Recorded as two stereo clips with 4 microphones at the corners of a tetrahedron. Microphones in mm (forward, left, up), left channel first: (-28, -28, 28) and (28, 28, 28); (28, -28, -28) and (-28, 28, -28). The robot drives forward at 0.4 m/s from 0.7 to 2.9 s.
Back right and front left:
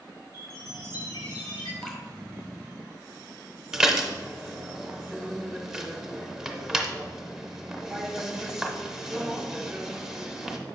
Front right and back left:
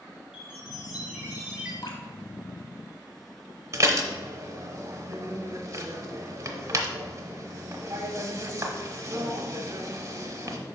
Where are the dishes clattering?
125° left, 0.9 m.